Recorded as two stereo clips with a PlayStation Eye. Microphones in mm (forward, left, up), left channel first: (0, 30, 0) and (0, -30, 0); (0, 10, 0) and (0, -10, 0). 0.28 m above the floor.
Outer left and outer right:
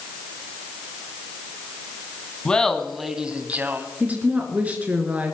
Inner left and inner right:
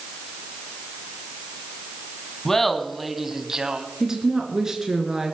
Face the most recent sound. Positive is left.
turn(degrees=-25)  # may be behind; listen again after turning